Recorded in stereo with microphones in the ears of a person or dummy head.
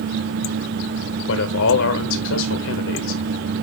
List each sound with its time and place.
1.3 s a man speaking: 75° left (ahead or behind), 1.1 m